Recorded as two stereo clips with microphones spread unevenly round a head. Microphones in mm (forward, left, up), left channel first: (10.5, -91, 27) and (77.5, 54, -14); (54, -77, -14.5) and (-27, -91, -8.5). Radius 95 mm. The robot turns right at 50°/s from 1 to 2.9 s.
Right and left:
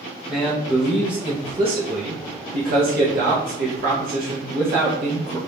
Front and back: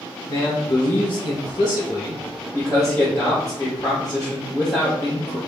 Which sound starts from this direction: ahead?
A man speaking, at 0.3 s.